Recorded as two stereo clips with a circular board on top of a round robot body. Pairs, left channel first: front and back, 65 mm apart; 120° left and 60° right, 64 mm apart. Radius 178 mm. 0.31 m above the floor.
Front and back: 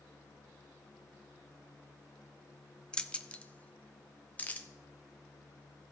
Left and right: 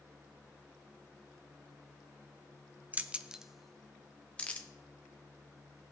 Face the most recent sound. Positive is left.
turn(degrees=60)